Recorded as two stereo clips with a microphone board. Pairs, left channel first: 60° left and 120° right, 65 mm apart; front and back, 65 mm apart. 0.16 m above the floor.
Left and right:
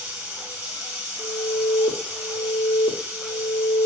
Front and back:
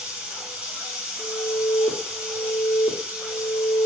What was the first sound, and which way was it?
Running water, 135° right.